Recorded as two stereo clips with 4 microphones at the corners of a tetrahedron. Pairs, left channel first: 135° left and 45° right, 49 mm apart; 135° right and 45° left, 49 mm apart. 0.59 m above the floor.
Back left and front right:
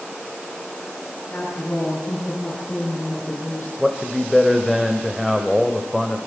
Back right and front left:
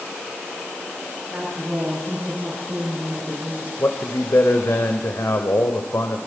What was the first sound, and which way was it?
A woman speaking, 105° left.